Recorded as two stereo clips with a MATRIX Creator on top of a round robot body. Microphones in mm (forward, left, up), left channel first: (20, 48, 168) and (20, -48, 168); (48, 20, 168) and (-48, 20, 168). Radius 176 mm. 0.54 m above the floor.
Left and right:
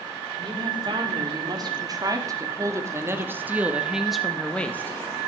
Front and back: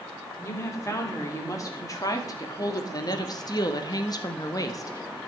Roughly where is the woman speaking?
Ahead right.